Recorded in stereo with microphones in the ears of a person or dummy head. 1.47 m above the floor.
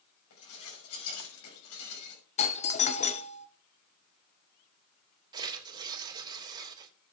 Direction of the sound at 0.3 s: 85° left.